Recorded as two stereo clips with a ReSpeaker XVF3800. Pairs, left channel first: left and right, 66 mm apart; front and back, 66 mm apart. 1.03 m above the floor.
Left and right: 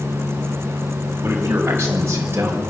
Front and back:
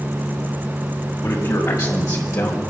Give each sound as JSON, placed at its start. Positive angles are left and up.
{"t": 1.2, "sound": "a man speaking", "azimuth_deg": -35, "distance_m": 6.0}